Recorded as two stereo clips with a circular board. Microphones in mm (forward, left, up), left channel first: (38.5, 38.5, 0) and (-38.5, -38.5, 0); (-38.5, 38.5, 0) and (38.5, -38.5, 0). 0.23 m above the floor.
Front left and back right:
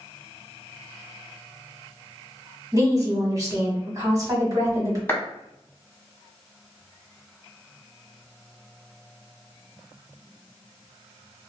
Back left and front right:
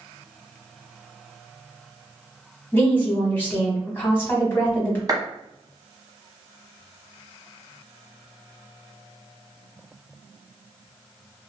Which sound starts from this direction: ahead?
A clap, at 5.1 s.